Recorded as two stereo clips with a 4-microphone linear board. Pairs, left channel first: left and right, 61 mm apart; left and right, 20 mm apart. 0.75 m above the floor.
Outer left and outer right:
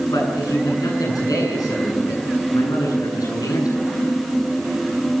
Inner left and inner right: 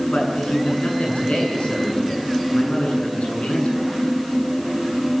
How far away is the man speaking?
About 9 m.